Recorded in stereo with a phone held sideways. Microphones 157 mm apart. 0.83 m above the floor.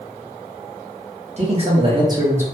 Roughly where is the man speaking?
Right.